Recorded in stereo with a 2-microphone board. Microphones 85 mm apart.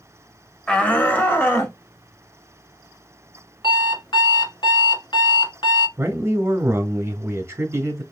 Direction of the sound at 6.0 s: 30° right (ahead or behind).